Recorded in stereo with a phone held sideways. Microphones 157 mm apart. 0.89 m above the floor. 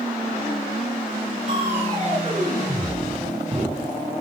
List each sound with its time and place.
1.5 s crushing: 35° right (ahead or behind), 5 m